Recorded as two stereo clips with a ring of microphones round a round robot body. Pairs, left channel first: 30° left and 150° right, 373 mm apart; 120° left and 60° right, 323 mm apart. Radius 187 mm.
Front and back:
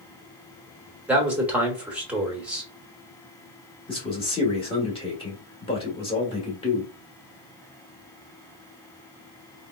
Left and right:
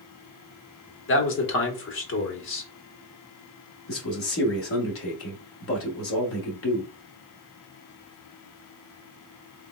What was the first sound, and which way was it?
A man speaking, 125° left.